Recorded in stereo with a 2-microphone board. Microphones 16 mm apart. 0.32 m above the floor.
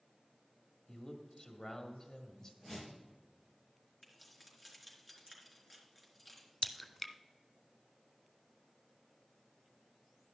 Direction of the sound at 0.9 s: 40° left (ahead or behind).